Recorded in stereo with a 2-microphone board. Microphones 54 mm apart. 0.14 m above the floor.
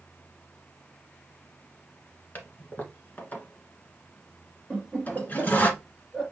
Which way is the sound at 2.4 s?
30° left (ahead or behind).